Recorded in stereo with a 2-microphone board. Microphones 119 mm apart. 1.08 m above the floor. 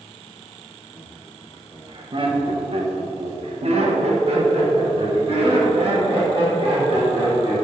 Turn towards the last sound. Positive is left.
turn(degrees=-50)  # may be behind; listen again after turning